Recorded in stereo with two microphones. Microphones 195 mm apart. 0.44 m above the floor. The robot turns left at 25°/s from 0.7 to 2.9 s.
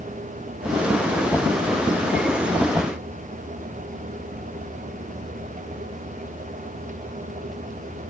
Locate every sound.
Only background noise.